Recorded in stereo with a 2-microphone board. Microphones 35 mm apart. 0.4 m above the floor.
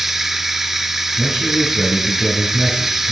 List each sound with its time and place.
0.0 s running water: 10° right (ahead or behind), 0.7 m
1.2 s a man speaking: 10° right (ahead or behind), 4.5 m